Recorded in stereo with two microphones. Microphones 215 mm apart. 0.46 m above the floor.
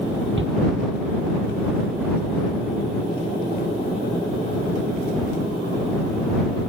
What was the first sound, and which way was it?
A shout, 65° right (ahead or behind).